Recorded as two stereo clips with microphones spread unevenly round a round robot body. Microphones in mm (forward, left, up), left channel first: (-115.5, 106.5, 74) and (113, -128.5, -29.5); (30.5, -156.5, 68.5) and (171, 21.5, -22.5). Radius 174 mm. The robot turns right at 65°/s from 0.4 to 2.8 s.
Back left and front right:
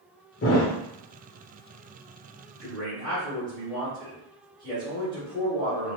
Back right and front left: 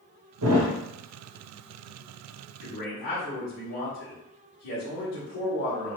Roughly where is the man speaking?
Behind right.